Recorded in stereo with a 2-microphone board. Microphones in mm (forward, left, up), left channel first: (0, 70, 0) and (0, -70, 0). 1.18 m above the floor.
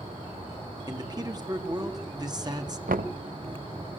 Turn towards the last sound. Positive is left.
turn(degrees=-80)